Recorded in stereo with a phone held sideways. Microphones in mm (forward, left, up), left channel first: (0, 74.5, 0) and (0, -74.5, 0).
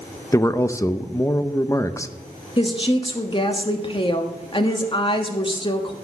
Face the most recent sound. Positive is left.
turn(degrees=35)  # may be behind; listen again after turning